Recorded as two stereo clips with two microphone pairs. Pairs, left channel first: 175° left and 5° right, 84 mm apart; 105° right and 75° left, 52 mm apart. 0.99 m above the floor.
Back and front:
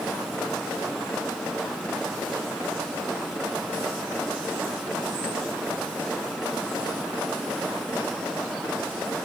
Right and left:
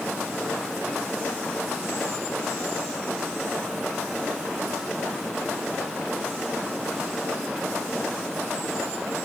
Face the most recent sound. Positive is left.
No sound to turn to.